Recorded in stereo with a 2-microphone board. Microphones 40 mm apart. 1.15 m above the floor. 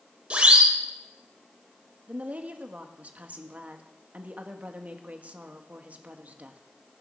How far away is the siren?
About 4 m.